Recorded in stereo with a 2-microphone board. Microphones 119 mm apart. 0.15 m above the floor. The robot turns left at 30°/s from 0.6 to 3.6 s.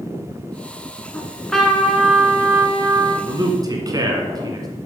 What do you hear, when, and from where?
1.1 s a trumpet: 20° left, 1.4 m; by 3.1 s 40° right, 1.4 m
3.2 s a man speaking: 30° right (ahead or behind), 1.4 m